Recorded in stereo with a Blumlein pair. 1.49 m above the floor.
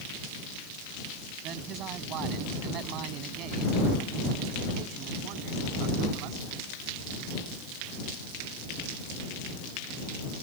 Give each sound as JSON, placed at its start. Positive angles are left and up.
{"t": 1.4, "sound": "a man speaking", "azimuth_deg": -35}